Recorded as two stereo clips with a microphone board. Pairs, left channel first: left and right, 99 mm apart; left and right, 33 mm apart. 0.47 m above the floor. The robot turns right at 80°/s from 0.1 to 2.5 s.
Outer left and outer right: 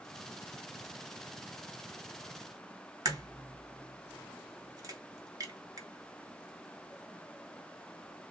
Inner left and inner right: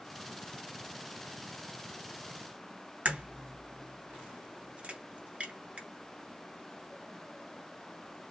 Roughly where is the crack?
Right.